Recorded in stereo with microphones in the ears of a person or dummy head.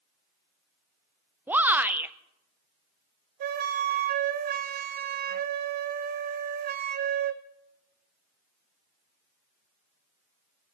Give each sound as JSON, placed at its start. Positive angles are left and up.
{"t": 1.5, "sound": "a shout", "side_deg": -5, "distance_m": 0.5}
{"t": 3.4, "sound": "a flute", "side_deg": -50, "distance_m": 0.6}